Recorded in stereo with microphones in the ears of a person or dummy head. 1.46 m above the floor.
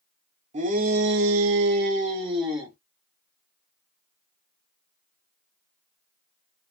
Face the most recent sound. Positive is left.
turn(degrees=-20)  # may be behind; listen again after turning